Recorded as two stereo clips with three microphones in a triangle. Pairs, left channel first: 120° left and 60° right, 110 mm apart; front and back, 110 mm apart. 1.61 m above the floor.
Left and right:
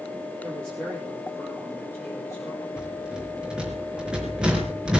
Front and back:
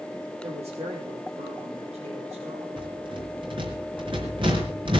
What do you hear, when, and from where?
0.4 s a woman speaking: 160° right, 5 m; by 2.7 s 175° right, 5.5 m
2.8 s a rattle: 140° right, 4.5 m